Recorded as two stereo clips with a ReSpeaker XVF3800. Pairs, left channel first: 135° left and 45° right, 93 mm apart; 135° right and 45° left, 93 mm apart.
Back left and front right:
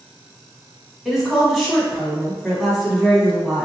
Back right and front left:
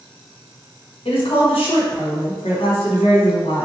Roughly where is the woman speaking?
Behind right.